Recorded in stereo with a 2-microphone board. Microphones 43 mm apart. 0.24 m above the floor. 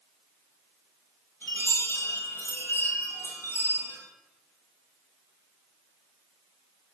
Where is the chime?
65° left (ahead or behind), 2.5 m.